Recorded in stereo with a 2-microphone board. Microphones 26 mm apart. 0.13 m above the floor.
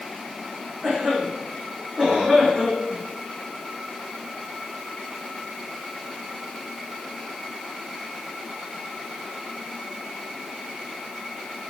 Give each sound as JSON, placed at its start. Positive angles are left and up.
{"t": 0.8, "sound": "a cough", "side_deg": -30, "distance_m": 7.0}